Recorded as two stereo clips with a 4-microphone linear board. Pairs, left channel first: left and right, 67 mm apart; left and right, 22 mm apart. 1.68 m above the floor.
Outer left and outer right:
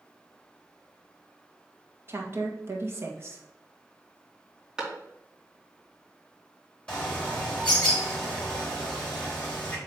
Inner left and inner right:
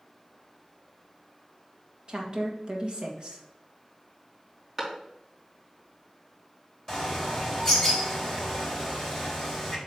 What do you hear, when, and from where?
2.1 s a woman speaking: 40° right (ahead or behind), 1.6 m
4.8 s a clap: 10° right (ahead or behind), 3.5 m
6.9 s a bird: 15° left (ahead or behind), 3.5 m